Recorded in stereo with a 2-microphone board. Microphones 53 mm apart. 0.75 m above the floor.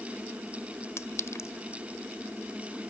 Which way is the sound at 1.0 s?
65° left (ahead or behind).